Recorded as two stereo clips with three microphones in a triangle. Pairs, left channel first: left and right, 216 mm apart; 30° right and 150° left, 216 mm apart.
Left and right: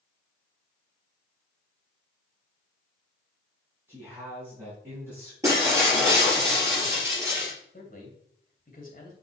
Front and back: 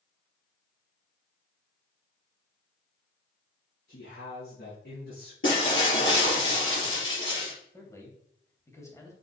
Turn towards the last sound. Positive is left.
turn(degrees=45)